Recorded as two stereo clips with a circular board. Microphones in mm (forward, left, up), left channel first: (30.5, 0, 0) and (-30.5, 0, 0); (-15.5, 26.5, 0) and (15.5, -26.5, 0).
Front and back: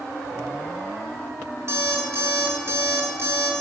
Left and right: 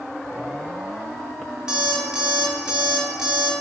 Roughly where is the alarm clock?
Behind right.